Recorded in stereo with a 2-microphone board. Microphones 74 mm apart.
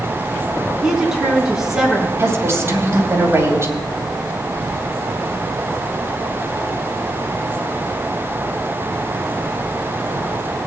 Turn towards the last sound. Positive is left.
turn(degrees=-35)  # may be behind; listen again after turning